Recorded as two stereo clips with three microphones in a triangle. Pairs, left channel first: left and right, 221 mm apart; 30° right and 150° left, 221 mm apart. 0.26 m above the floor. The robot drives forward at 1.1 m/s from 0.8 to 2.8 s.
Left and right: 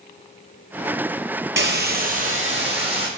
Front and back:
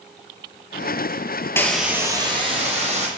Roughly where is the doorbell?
I don't hear a doorbell.